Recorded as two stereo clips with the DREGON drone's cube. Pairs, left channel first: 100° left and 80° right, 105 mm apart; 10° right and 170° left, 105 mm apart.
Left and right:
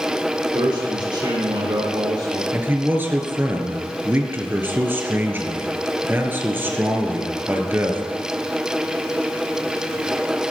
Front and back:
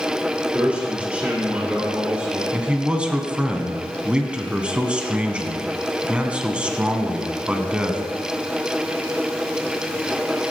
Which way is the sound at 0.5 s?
115° right.